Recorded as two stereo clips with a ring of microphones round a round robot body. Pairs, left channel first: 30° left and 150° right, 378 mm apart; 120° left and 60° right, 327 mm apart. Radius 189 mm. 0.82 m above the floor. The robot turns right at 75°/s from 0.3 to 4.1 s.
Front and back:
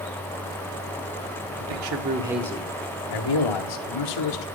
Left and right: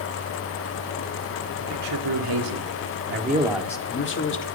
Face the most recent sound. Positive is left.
turn(degrees=70)